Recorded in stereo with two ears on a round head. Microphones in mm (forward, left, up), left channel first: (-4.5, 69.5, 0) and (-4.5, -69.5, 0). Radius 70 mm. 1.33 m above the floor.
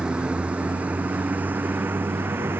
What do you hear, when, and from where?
0.0 s a vehicle: 5° right (ahead or behind); by 2.6 s 15° right (ahead or behind)